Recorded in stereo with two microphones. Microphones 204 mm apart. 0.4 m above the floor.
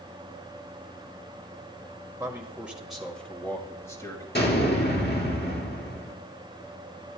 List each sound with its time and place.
2.2 s a man speaking: 15° right (ahead or behind), 1.7 m; by 4.2 s 20° left (ahead or behind), 2.5 m
4.3 s an explosion: 55° left (ahead or behind), 3.5 m